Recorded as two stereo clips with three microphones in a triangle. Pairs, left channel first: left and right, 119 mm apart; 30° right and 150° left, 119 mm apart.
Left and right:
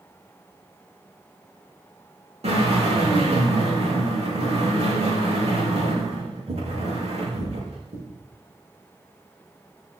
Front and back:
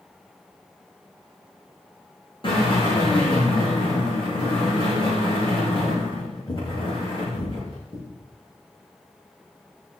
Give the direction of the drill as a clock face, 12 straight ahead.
2 o'clock.